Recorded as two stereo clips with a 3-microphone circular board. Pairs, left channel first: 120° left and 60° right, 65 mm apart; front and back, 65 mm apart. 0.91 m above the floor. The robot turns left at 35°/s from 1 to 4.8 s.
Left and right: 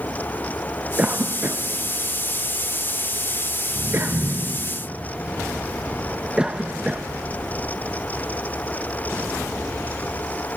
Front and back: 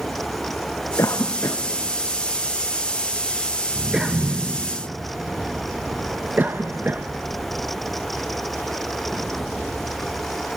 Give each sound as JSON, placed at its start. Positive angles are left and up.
{"t": 1.0, "sound": "a cough", "azimuth_deg": 0, "distance_m": 0.6}